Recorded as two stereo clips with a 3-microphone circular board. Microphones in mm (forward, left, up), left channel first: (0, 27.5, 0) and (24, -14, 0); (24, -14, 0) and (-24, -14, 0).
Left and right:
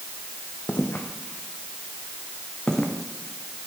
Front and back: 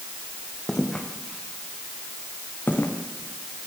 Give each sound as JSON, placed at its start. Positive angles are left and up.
{"t": 0.7, "sound": "footsteps", "azimuth_deg": 80, "distance_m": 3.5}